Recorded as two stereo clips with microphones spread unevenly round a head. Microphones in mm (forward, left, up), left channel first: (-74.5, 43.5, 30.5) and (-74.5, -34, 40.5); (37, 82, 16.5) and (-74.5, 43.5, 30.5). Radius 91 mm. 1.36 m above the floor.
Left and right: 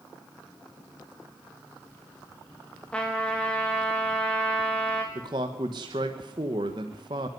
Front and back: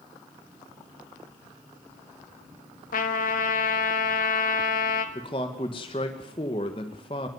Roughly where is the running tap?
No running tap in this recording.